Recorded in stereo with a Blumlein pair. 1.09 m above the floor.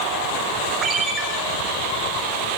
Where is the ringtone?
25° right, 6 m.